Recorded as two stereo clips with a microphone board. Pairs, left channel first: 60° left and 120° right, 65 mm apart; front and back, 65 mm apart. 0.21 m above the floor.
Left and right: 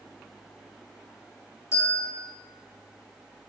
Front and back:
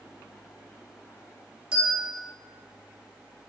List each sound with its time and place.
1.7 s a bell: 105° left, 1.8 m